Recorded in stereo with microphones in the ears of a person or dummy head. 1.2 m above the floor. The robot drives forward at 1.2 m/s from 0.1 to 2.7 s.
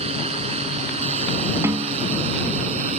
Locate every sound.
0.0 s a drone: 35° right (ahead or behind); by 3.0 s 40° right (ahead or behind)
1.6 s a snare drum: 20° right (ahead or behind)